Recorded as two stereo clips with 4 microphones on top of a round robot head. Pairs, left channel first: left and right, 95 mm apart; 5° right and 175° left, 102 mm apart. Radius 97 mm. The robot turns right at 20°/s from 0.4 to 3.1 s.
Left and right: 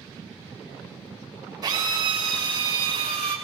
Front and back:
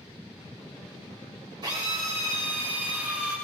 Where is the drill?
135° right, 5 m; by 3.4 s 105° right, 5 m.